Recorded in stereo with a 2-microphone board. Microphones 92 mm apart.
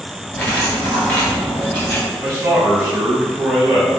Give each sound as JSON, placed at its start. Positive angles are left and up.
{"t": 0.3, "sound": "cutlery clinking", "side_deg": 15, "distance_m": 1.5}
{"t": 2.2, "sound": "a man speaking", "side_deg": -20, "distance_m": 1.0}